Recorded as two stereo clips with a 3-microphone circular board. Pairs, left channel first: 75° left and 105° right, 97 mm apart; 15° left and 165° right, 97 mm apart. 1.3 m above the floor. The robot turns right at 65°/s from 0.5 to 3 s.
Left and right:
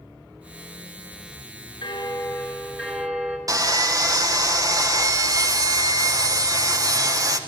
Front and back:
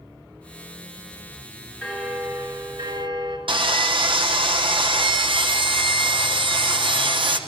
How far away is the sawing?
About 1.3 m.